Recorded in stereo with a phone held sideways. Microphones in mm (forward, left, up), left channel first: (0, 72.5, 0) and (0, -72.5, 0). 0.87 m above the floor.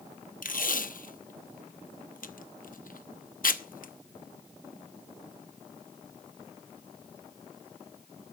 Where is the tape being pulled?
70° left (ahead or behind), 0.8 m.